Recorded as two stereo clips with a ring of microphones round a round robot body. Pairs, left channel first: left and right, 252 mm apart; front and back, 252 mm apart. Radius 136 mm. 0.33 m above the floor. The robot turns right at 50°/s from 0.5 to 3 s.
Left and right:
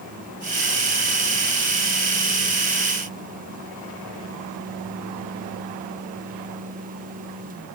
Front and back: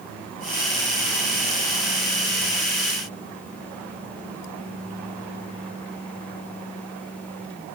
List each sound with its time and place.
Only background noise.